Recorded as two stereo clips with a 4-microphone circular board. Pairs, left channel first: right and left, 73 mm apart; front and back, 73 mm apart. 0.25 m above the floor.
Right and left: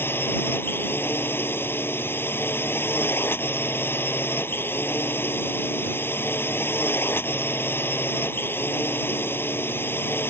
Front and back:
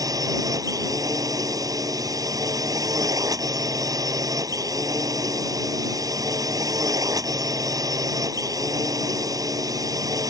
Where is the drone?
145° right.